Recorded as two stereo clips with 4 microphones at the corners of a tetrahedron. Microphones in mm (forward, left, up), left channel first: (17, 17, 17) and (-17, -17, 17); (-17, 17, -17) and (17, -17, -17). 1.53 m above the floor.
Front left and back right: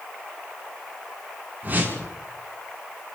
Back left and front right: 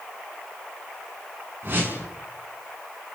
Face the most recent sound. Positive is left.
turn(degrees=-85)